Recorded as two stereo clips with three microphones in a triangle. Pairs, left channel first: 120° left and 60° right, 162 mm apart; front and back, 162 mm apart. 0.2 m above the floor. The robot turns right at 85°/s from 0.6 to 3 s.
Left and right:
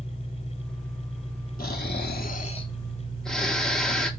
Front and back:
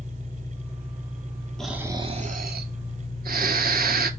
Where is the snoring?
85° left, 0.6 m; by 4.1 s 155° right, 0.6 m.